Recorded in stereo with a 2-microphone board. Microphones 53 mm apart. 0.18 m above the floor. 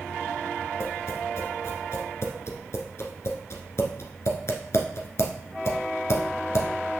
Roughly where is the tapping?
Left.